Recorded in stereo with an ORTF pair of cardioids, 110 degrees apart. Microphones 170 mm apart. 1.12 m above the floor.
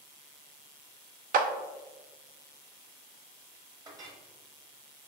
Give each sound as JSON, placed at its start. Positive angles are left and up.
{"t": 1.3, "sound": "a clap", "azimuth_deg": -55, "distance_m": 0.6}
{"t": 3.9, "sound": "a clink", "azimuth_deg": -20, "distance_m": 1.1}